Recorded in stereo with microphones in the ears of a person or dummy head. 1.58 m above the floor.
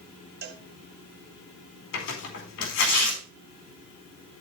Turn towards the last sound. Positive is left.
turn(degrees=65)  # may be behind; listen again after turning